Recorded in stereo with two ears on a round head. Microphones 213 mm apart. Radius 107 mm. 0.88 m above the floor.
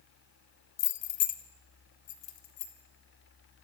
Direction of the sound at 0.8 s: 70° left (ahead or behind).